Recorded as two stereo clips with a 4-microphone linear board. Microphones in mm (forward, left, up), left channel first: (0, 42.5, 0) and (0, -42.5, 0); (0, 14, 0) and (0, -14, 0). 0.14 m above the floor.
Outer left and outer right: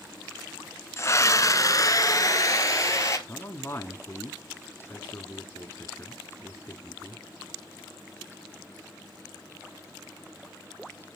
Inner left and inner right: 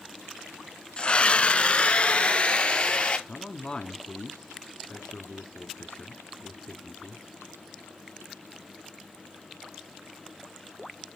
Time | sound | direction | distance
1.0 | a scream | 35° left (ahead or behind) | 1.2 m
3.3 | a man speaking | 30° left (ahead or behind) | 1.2 m